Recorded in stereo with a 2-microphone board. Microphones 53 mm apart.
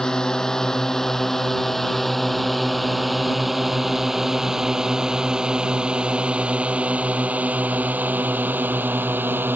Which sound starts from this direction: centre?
A drone, at 0.0 s.